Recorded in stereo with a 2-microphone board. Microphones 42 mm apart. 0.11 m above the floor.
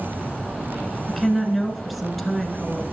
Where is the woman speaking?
Centre (ahead or behind), 1.2 m.